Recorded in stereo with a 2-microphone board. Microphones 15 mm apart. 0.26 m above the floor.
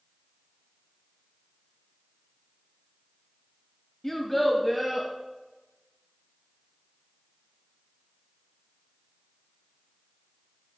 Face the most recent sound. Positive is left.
turn(degrees=-20)  # may be behind; listen again after turning